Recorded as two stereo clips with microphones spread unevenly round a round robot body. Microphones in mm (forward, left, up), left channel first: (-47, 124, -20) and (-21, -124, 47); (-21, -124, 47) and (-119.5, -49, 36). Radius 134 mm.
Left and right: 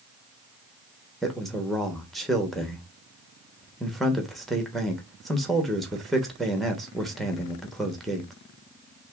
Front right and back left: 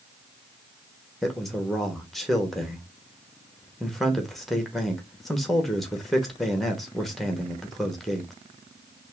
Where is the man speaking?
60° left, 1.0 m.